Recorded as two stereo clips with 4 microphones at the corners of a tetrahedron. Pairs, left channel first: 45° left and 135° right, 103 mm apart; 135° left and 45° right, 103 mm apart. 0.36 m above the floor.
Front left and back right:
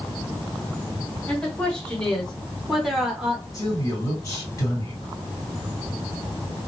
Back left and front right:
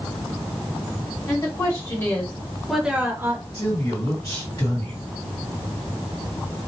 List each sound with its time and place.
1.3 s a woman speaking: 115° left, 1.4 m; by 3.4 s 60° right, 1.1 m
3.5 s a man speaking: 90° left, 2.5 m